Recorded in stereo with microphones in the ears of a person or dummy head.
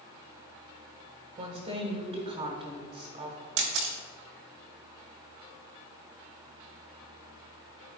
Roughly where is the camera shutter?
Right.